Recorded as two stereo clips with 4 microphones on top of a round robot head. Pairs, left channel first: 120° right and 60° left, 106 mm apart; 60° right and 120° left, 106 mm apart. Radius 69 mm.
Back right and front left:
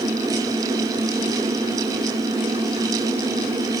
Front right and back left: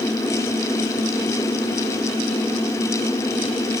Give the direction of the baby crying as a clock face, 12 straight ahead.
I don't hear a baby crying.